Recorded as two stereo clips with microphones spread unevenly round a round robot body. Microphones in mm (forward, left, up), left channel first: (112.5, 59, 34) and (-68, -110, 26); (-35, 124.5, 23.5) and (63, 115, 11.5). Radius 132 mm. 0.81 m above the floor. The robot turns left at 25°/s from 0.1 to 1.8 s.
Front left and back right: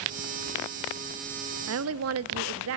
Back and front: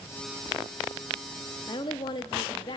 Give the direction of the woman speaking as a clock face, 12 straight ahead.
4 o'clock.